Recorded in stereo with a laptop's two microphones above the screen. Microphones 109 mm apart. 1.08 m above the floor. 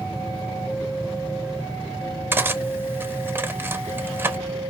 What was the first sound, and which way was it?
Cutlery clinking, 20° right (ahead or behind).